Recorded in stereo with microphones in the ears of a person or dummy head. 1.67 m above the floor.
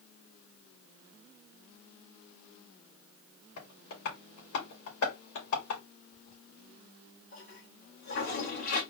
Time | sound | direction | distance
3.6 | tapping | 80° left | 3 m
6.1 | a toilet flushing | 65° left (ahead or behind) | 2.5 m